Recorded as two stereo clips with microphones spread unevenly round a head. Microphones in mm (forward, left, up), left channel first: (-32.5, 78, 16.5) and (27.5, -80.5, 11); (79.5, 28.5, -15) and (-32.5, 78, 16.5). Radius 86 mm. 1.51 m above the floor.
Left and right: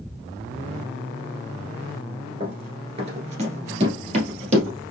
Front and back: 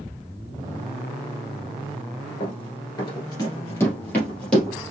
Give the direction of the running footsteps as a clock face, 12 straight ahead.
1 o'clock.